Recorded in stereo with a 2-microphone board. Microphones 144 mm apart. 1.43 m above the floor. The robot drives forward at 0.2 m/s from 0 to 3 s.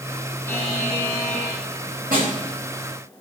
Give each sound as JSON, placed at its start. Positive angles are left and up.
{"t": 0.5, "sound": "a buzzer", "side_deg": 15, "distance_m": 2.5}
{"t": 2.1, "sound": "a snare drum", "side_deg": -75, "distance_m": 6.0}